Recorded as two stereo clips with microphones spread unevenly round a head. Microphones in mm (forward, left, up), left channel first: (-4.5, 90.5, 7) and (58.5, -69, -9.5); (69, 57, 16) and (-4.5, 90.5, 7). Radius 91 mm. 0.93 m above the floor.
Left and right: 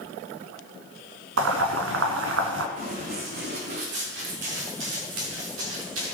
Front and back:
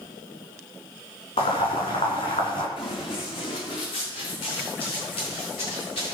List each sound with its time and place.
1.4 s boiling: 65° right, 2.5 m
2.8 s running footsteps: 25° right, 3.5 m; by 6.1 s 75° right, 5 m